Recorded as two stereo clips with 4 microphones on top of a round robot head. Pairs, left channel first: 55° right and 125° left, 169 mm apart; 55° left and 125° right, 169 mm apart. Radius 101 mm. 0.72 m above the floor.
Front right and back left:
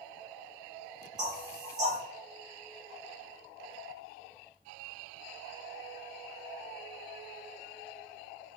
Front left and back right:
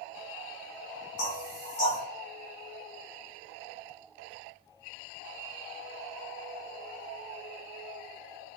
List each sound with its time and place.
1.2 s knocking: 60° left, 2.0 m